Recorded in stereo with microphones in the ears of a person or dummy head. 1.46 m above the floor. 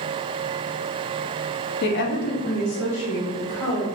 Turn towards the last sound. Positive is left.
turn(degrees=90)